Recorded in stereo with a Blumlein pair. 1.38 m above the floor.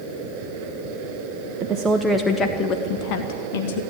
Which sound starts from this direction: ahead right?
A woman speaking, at 1.6 s.